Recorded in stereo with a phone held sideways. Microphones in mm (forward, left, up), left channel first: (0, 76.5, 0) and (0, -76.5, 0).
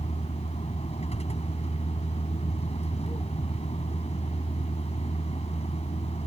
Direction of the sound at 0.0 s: 45° left (ahead or behind).